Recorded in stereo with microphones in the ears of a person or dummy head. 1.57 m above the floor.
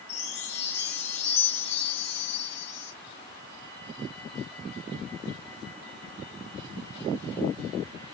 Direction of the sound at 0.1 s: 40° left (ahead or behind).